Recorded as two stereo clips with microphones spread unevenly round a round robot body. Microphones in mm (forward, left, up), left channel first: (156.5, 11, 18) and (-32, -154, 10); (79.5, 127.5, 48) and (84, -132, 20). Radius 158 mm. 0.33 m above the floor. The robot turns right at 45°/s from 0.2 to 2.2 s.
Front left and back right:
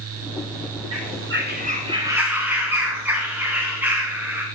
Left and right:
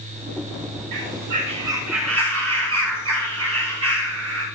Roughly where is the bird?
Behind right.